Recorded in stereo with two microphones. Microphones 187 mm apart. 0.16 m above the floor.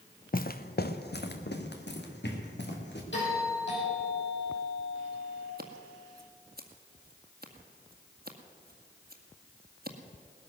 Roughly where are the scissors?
Right.